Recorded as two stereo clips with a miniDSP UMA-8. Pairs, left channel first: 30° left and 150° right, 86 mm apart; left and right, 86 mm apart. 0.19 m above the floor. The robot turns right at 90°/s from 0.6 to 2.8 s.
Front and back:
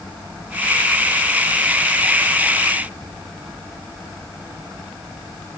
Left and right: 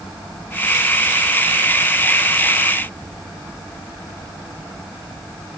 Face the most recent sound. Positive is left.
No sound to turn to.